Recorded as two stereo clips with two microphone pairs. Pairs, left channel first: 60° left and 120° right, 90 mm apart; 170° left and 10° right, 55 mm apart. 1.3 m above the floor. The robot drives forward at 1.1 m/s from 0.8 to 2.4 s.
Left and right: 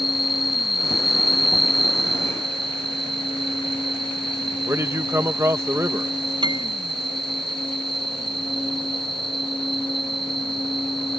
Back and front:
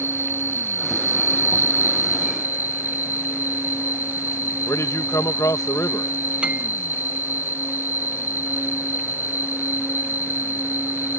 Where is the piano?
80° right.